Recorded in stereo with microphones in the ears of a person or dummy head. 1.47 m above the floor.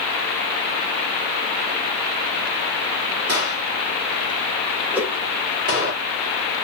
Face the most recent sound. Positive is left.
turn(degrees=-5)  # may be behind; listen again after turning